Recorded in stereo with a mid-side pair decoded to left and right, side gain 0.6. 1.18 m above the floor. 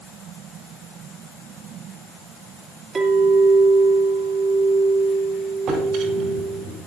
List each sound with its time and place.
3.0 s a clink: 35° right, 2.5 m
5.7 s a drawer: 65° right, 5.5 m